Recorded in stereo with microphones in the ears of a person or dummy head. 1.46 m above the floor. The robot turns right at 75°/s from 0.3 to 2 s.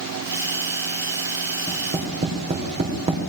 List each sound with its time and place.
1.7 s tapping: centre (ahead or behind), 3.5 m; by 3.2 s 25° right (ahead or behind), 3.5 m